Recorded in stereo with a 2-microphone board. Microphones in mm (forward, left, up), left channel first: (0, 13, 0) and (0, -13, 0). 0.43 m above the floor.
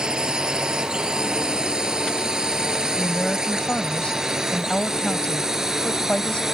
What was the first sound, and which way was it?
A drone, 30° right (ahead or behind).